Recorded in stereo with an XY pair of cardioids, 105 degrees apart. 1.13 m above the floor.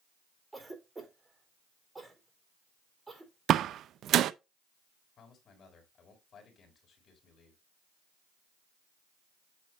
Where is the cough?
20° right, 4 m.